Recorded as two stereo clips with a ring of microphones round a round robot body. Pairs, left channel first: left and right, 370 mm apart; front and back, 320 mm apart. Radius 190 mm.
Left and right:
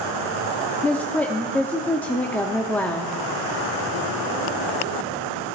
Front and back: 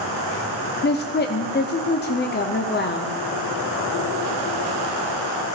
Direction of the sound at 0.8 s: 10° left.